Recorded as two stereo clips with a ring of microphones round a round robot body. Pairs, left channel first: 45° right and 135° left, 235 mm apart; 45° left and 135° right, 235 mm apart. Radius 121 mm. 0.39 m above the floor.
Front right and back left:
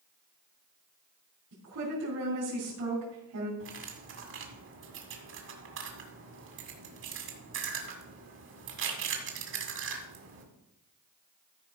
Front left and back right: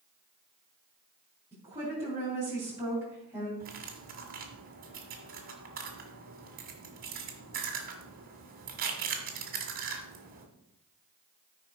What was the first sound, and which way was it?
A woman speaking, 150° left.